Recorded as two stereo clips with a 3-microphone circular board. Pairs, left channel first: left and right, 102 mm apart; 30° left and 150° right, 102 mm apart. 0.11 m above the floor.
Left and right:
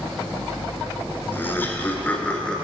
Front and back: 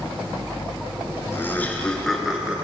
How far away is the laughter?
About 1.6 m.